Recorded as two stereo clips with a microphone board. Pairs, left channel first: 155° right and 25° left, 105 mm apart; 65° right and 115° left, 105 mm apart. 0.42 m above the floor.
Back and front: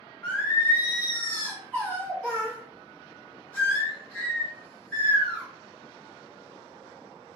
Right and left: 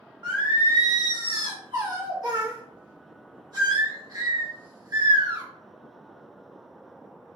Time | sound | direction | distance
0.2 | singing | 135° left | 1.1 m